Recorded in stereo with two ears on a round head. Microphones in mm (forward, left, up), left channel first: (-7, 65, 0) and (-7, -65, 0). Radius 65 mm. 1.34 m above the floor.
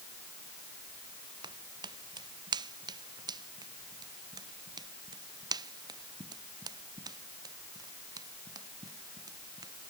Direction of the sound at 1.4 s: 30° right (ahead or behind).